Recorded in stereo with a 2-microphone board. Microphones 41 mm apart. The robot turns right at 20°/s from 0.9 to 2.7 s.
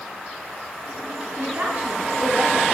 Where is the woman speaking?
55° right (ahead or behind), 3 m; by 2.6 s 30° right (ahead or behind), 3 m.